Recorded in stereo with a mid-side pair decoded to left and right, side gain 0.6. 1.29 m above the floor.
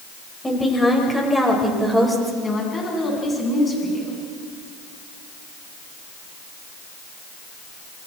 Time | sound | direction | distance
0.4 | a woman speaking | 15° left | 5.5 m
2.4 | a woman speaking | 20° left | 10 m